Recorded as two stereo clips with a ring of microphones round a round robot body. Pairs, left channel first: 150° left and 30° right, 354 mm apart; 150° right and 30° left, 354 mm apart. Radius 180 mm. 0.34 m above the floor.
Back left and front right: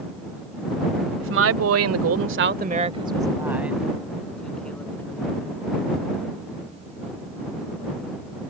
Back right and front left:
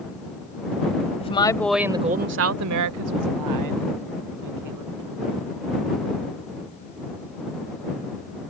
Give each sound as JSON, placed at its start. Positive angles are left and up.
{"t": 1.2, "sound": "a woman speaking", "azimuth_deg": -80}